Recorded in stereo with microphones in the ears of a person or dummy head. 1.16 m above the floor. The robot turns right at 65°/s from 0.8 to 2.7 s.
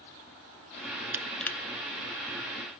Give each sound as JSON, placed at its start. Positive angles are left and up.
{"t": 1.1, "sound": "crushing", "side_deg": -10, "distance_m": 0.6}